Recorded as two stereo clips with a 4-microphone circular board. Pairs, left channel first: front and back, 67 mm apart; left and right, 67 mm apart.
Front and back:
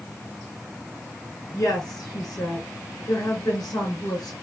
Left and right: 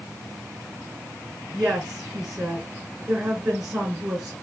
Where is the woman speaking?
20° right, 2.5 m.